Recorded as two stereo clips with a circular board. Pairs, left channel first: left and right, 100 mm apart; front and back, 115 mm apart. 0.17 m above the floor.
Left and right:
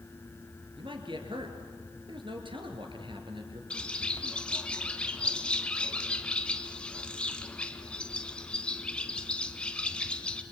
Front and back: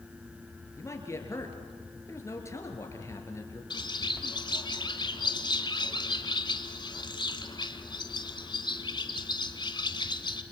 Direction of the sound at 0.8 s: 65° right.